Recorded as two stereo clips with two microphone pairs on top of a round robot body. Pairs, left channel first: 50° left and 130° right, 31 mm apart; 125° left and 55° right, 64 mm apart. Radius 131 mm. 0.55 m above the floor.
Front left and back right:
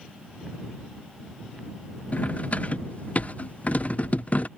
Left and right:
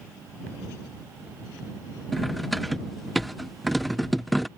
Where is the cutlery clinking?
35° left.